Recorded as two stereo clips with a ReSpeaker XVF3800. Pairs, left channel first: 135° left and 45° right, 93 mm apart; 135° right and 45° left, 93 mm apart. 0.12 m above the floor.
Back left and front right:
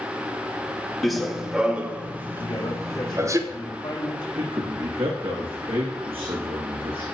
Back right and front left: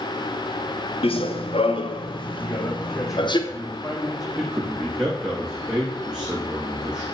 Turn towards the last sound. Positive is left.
turn(degrees=-35)